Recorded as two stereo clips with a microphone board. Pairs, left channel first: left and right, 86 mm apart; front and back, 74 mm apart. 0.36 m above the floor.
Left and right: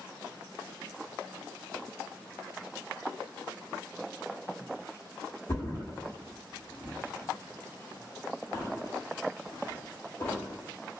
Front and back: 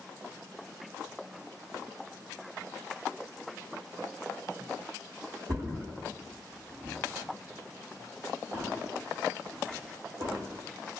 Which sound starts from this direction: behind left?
A thud, at 5.5 s.